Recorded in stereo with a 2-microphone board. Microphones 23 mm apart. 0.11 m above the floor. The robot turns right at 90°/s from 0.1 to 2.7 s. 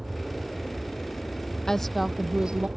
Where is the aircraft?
10° right; by 2.8 s 135° right.